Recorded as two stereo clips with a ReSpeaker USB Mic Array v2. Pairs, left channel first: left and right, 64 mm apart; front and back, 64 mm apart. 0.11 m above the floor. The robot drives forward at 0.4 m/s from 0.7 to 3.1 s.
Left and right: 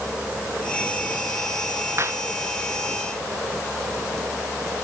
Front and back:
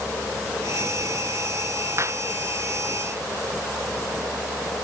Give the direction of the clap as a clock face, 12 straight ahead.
4 o'clock.